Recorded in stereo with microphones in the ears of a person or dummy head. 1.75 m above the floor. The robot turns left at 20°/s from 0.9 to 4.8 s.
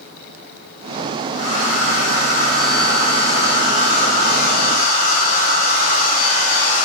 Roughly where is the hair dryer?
Behind left.